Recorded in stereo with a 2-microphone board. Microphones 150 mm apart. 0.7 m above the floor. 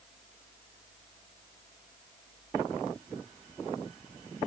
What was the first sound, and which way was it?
Only background noise.